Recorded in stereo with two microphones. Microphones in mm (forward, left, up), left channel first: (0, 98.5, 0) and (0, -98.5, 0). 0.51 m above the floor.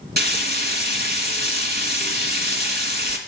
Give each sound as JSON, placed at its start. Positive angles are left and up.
{"t": 0.2, "sound": "frying", "side_deg": -55, "distance_m": 1.3}